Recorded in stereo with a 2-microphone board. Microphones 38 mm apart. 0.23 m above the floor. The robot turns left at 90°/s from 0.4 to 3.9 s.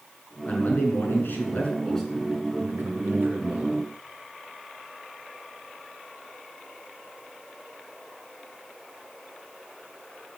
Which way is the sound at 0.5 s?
145° left.